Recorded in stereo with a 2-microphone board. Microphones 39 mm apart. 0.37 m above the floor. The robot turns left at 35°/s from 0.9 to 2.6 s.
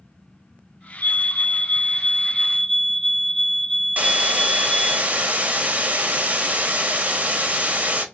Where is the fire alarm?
60° left, 3 m; by 5.0 s 5° left, 3 m.